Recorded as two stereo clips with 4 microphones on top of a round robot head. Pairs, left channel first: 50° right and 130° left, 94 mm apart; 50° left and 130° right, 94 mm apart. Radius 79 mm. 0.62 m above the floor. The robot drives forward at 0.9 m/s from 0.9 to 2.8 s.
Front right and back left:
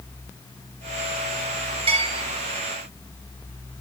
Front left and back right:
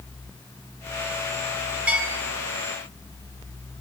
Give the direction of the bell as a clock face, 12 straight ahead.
7 o'clock.